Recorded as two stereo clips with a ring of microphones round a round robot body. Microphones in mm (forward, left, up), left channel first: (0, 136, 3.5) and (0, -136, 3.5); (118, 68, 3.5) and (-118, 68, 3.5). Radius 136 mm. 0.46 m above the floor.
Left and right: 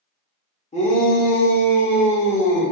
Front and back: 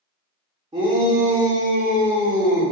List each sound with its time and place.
0.7 s a shout: 125° left, 1.1 m; by 2.7 s 135° left, 2.0 m